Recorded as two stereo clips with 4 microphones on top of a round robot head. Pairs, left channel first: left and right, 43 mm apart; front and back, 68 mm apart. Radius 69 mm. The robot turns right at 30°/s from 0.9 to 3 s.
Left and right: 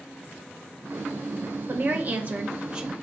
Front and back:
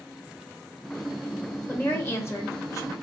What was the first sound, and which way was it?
A woman speaking, 55° right.